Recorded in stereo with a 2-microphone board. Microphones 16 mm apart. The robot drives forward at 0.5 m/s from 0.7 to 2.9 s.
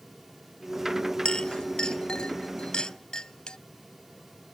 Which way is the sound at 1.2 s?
85° left.